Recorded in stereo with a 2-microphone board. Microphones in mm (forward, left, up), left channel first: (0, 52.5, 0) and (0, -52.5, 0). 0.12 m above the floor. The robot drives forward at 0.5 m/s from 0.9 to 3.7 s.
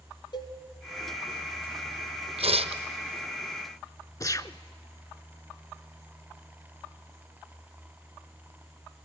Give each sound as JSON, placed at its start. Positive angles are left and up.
{"t": 0.3, "sound": "a cowbell", "side_deg": 45, "distance_m": 2.5}
{"t": 2.4, "sound": "tearing paper", "side_deg": -75, "distance_m": 1.0}
{"t": 4.2, "sound": "a gunshot", "side_deg": 35, "distance_m": 0.6}